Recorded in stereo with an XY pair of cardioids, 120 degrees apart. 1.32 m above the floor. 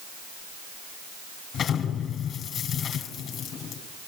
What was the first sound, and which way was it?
An explosion, 55° left.